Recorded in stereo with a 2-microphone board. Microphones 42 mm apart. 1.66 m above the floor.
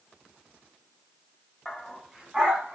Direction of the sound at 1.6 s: 5° left (ahead or behind).